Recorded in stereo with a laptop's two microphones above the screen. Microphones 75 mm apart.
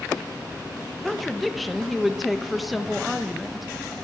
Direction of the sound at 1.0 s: Centre (ahead or behind).